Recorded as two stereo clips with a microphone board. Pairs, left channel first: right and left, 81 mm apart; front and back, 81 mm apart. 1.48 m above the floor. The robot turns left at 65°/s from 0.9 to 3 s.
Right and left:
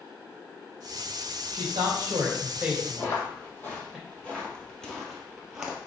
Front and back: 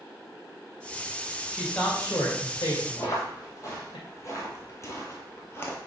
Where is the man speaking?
90° left, 2.5 m; by 4.0 s 5° right, 2.5 m.